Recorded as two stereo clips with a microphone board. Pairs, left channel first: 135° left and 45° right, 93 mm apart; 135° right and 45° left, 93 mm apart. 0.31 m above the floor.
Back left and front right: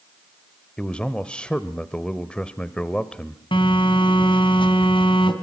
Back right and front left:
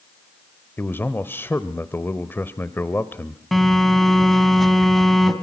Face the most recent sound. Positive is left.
turn(degrees=135)